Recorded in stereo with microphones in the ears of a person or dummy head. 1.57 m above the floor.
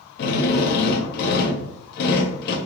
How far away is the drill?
About 0.5 m.